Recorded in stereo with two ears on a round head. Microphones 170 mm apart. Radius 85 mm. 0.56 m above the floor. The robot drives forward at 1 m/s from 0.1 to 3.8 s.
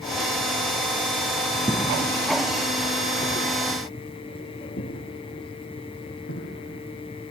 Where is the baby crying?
I don't hear a baby crying.